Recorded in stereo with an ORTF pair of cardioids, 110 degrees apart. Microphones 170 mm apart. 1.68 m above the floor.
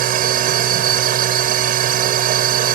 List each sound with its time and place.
0.0 s a machine running: 60° right